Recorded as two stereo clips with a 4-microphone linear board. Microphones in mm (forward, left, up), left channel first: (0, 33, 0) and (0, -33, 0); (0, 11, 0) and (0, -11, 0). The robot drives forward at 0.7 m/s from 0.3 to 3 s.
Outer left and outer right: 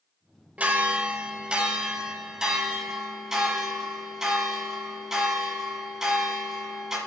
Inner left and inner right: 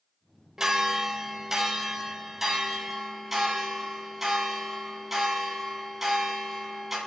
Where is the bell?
20° right (ahead or behind), 0.8 m; by 7.0 s 10° right (ahead or behind), 2 m.